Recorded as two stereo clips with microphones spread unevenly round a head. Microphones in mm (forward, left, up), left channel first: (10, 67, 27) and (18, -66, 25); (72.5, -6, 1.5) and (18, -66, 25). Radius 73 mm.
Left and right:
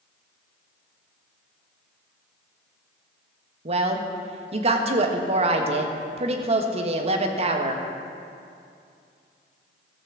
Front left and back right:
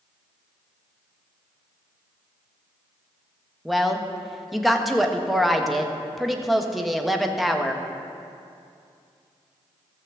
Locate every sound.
3.6 s a woman speaking: 40° right, 1.2 m